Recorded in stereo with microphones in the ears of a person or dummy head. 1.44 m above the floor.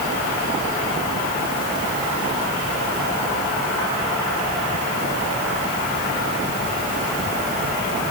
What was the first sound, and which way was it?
Only background noise.